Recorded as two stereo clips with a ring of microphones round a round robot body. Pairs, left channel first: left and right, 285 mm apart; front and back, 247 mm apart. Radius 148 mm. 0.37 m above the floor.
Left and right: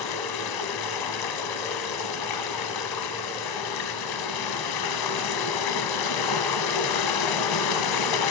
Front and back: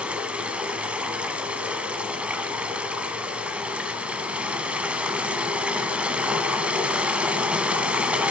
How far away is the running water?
About 1.0 m.